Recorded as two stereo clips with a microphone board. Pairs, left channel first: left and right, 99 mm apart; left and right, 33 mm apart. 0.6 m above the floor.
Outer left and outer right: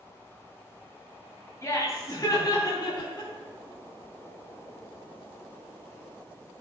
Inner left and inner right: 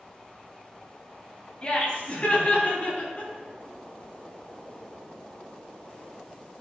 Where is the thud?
No thud in this recording.